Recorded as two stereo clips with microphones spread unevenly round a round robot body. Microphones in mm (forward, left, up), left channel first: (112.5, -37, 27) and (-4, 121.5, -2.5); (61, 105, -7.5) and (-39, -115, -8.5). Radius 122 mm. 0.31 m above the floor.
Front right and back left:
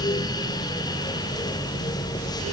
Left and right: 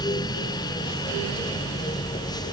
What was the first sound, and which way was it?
Only background noise.